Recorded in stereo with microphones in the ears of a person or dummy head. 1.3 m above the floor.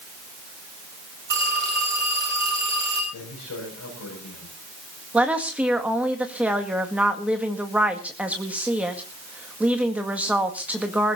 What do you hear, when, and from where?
1.3 s a phone ringing: 60° right (ahead or behind), 8 m
3.1 s a man speaking: 85° left, 6 m
5.1 s a woman speaking: 10° right (ahead or behind), 1.9 m